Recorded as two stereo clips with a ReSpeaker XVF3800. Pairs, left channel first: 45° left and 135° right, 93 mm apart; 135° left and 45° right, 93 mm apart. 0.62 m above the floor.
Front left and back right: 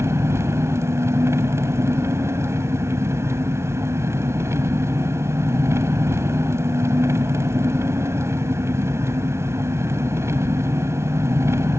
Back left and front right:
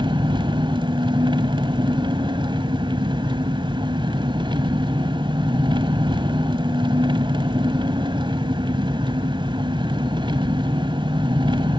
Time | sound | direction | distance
0.0 | an engine running | 75° right | 1.3 m